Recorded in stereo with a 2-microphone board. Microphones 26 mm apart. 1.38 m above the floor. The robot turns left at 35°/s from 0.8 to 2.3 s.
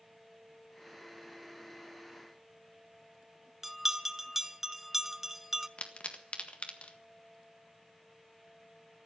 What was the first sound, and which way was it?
A bell, 15° right (ahead or behind).